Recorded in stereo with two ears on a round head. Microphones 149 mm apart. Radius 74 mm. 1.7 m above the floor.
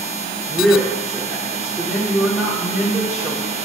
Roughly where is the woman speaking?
Centre.